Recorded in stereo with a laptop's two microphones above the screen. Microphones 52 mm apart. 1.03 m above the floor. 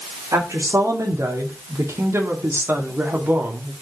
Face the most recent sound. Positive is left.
turn(degrees=-30)  # may be behind; listen again after turning